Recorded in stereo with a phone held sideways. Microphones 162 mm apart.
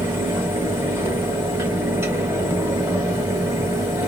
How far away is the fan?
About 1.0 m.